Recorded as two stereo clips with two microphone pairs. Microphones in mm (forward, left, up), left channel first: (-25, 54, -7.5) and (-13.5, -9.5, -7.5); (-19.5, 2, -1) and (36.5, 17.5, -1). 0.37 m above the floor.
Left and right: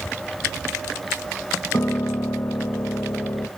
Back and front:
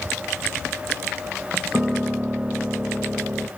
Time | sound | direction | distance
1.7 | a piano | 95° left | 0.7 m